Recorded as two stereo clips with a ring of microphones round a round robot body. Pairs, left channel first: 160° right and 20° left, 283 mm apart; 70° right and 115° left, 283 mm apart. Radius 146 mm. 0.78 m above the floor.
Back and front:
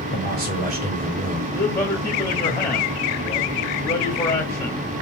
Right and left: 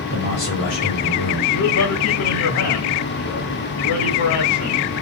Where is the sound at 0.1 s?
30° right, 3 m; by 1.4 s 45° right, 2.5 m.